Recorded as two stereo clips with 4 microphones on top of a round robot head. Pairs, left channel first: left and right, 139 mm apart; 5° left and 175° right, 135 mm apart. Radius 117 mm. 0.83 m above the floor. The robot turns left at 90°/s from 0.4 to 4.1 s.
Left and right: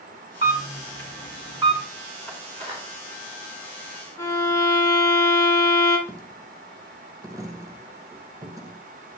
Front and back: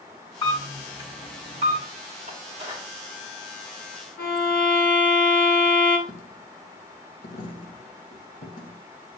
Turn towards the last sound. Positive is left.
turn(degrees=-25)